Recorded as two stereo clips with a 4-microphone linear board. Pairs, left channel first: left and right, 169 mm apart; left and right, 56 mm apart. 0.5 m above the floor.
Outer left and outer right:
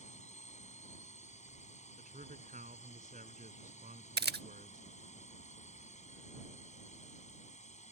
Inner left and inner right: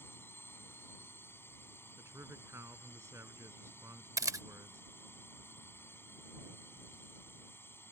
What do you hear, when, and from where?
0.0 s a drone: 45° left (ahead or behind)
2.0 s a man speaking: 50° right (ahead or behind)
4.2 s a camera shutter: 75° right (ahead or behind)